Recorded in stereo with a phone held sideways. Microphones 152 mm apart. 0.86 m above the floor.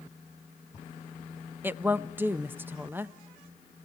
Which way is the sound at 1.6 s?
15° right (ahead or behind).